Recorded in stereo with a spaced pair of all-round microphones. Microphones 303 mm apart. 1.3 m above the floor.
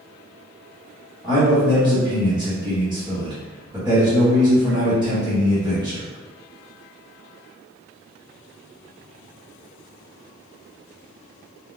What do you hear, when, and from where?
1.2 s a man speaking: 10° right (ahead or behind), 1.1 m